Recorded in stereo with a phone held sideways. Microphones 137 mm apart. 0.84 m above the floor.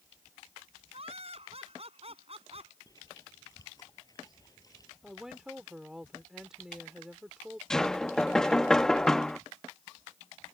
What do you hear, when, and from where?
0.9 s laughter: 50° right (ahead or behind)
2.9 s chewing: 25° left (ahead or behind)
5.0 s a woman speaking: 5° right (ahead or behind)
7.7 s knocking: 5° left (ahead or behind)